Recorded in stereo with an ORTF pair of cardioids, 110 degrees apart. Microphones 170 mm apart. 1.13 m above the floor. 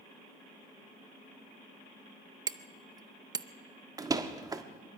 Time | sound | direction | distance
2.5 | hammering | 20° right | 0.7 m
4.0 | a door slam | 20° right | 1.4 m